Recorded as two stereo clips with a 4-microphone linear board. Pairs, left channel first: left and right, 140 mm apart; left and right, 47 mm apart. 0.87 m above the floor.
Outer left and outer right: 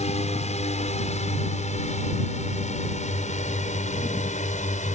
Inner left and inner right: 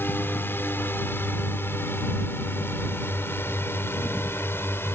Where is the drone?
50° left (ahead or behind); by 5.0 s 60° left (ahead or behind).